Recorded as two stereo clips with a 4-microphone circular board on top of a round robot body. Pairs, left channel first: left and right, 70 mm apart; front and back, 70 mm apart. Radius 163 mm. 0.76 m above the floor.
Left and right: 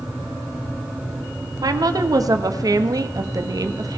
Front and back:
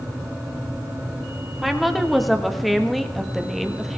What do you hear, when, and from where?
1.6 s a woman speaking: 90° right, 1.6 m